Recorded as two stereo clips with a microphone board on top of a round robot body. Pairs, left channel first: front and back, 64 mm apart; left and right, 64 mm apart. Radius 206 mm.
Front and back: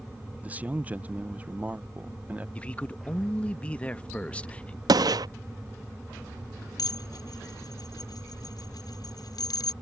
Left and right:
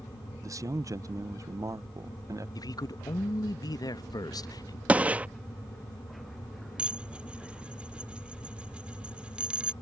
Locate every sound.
0.4 s a man speaking: 115° right
2.5 s a man speaking: 70° left
4.9 s a gunshot: 160° right
6.8 s dishes clattering: 15° right